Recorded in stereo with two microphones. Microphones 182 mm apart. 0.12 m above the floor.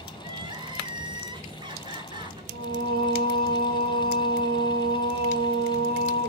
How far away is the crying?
About 1.0 m.